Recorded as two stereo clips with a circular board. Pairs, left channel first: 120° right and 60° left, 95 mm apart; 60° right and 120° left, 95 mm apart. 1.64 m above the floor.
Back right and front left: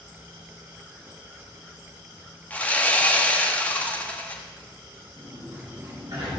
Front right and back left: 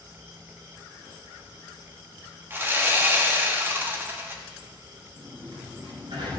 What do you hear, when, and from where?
2.5 s sawing: 175° left, 1.3 m
5.2 s a sliding door: 105° left, 3.5 m